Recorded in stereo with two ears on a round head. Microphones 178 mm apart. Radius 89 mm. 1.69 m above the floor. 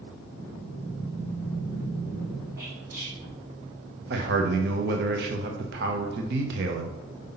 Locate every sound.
0.3 s breathing: 70° right (ahead or behind), 3.5 m
2.6 s whispering: 15° right (ahead or behind), 3.5 m
4.1 s a man speaking: 55° right (ahead or behind), 1.0 m